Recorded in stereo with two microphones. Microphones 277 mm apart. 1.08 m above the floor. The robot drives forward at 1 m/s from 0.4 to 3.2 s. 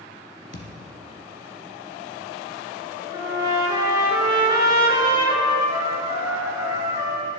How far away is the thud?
About 1.8 m.